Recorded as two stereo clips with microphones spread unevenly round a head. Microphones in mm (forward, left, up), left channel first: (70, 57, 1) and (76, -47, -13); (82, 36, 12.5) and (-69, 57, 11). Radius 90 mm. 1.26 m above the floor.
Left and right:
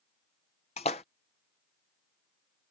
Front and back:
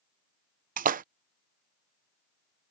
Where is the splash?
145° left.